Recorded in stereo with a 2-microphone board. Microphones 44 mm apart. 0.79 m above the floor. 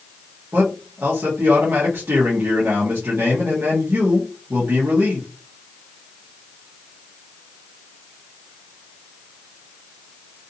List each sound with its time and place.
0.5 s a man speaking: 60° right (ahead or behind), 1.3 m